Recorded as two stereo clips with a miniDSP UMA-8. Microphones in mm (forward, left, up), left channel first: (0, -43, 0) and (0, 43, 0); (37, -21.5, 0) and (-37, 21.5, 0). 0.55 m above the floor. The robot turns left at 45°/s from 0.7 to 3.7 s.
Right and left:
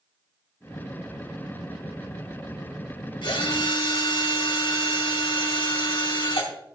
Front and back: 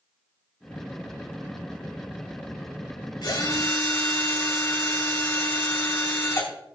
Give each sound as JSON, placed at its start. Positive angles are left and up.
{"t": 3.2, "sound": "a drill", "azimuth_deg": -65, "distance_m": 3.0}